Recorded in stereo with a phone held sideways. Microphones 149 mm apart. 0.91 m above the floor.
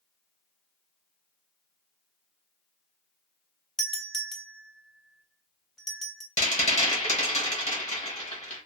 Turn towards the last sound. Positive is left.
turn(degrees=50)  # may be behind; listen again after turning